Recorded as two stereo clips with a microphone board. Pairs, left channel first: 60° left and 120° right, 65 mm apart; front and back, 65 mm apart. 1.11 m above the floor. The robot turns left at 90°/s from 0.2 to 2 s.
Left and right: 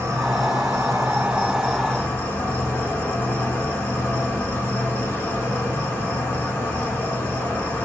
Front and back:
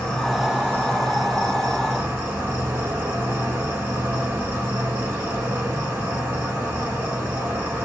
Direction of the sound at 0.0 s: 75° right.